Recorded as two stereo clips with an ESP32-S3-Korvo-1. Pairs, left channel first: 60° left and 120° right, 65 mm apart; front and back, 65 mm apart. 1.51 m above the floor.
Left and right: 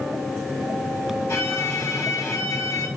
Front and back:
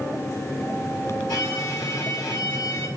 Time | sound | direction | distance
1.3 | a violin | 10° left | 4.5 m